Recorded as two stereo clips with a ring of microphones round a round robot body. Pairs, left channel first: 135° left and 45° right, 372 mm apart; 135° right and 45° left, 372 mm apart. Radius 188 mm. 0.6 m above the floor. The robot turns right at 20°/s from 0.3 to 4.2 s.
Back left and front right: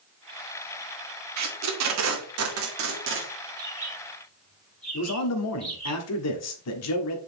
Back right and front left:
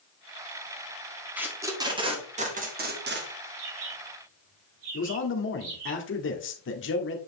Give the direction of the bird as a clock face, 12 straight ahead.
11 o'clock.